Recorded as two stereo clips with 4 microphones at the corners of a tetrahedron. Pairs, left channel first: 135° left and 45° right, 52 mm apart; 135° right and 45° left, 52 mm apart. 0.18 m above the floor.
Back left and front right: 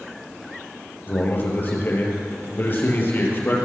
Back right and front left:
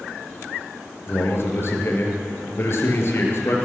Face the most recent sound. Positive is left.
turn(degrees=-175)